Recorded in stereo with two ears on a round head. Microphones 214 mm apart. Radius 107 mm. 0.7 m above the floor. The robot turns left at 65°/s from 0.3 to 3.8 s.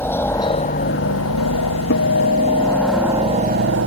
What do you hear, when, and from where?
0.0 s a helicopter: 170° left; by 3.9 s 60° right
1.9 s a guitar: 130° left; by 3.8 s 5° left